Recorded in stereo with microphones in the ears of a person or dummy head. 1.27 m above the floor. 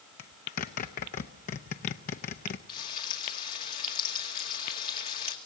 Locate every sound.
0.2 s a zipper: 40° left (ahead or behind), 0.6 m
2.7 s frying: 40° left (ahead or behind), 2 m